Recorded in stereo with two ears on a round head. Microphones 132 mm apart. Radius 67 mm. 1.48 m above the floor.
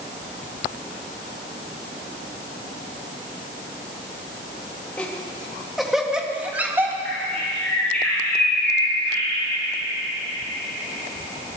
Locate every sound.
5.0 s laughter: 10° left (ahead or behind), 2.5 m; by 7.0 s 15° right (ahead or behind), 2 m
7.0 s a bird: 10° left (ahead or behind), 9.5 m